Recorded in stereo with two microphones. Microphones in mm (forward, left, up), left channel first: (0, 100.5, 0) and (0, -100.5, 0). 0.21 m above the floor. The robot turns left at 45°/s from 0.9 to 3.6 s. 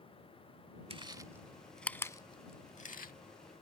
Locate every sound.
0.9 s chewing: 30° right (ahead or behind); by 3.1 s 45° left (ahead or behind)